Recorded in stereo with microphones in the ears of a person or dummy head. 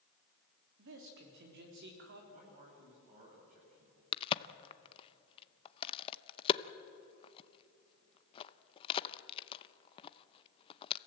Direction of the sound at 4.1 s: 30° left (ahead or behind).